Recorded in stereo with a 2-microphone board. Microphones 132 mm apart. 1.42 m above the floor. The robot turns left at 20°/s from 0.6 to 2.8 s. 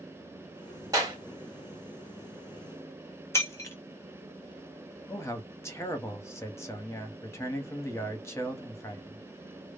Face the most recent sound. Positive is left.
turn(degrees=20)  # may be behind; listen again after turning